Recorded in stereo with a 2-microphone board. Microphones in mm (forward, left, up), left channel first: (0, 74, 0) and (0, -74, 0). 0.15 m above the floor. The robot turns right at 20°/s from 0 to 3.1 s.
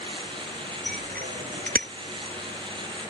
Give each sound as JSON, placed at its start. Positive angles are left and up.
{"t": 0.9, "sound": "a bicycle bell", "side_deg": -85}